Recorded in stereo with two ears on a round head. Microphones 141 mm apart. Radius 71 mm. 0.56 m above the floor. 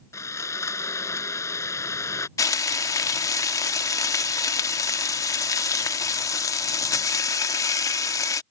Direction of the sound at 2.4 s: 20° left (ahead or behind).